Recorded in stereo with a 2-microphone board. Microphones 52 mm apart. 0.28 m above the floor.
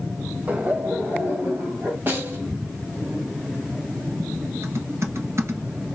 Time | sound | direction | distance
0.5 | laughter | 30° right (ahead or behind) | 1.1 m
2.1 | a snare drum | 40° right (ahead or behind) | 1.6 m
4.6 | typing on a keyboard | 60° right (ahead or behind) | 1.2 m